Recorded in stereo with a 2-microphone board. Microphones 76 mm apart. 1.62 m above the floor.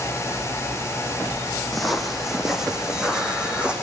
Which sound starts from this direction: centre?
Footsteps, at 1.7 s.